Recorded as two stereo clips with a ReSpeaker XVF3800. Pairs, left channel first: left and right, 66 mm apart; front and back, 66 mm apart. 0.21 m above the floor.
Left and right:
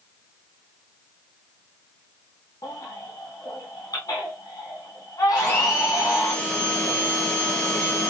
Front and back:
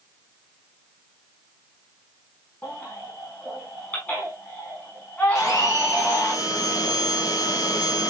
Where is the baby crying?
65° left, 5 m.